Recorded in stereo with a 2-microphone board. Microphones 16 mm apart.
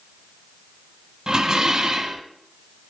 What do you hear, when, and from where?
1.3 s dishes clattering: 35° right (ahead or behind), 1.4 m